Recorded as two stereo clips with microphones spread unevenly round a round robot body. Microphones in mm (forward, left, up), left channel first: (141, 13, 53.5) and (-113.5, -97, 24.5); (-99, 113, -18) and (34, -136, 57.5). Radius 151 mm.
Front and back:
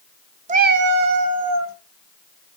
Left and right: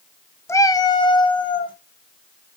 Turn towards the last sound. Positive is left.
turn(degrees=-175)